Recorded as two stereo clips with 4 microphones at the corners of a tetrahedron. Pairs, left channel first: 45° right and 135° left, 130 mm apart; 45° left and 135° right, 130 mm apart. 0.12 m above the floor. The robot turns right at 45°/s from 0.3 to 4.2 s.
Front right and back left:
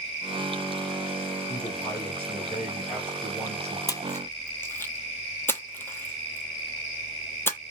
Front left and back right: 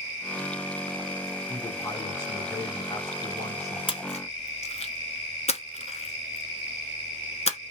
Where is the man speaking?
10° right, 1.2 m; by 3.8 s 95° left, 1.2 m.